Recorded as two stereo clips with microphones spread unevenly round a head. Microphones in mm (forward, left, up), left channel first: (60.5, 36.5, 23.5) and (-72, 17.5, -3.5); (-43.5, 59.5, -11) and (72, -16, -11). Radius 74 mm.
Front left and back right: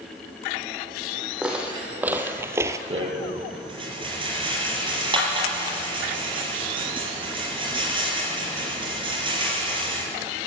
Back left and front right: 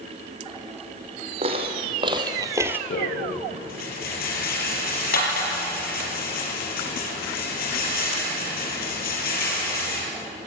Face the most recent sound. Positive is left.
turn(degrees=135)